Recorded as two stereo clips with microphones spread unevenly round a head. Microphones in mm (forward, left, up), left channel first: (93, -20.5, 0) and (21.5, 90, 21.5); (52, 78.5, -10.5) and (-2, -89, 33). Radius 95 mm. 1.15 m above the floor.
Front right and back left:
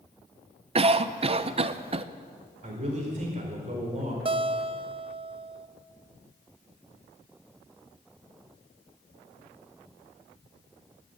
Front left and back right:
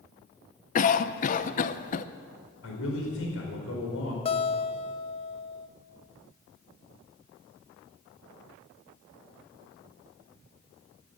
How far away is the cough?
About 0.8 m.